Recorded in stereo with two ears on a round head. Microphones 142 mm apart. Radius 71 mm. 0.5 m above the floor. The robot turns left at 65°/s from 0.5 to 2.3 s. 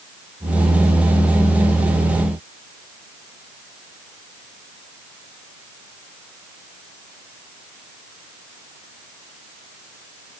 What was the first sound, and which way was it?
Only background noise.